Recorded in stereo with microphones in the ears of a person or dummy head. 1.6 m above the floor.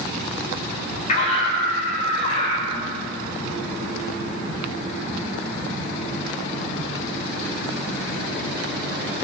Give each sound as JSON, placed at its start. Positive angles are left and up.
{"t": 1.1, "sound": "a scream", "side_deg": 50, "distance_m": 5.5}